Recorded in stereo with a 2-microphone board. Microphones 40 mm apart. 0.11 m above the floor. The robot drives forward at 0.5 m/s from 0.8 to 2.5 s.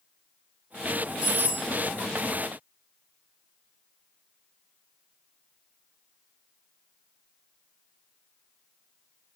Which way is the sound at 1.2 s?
40° right (ahead or behind).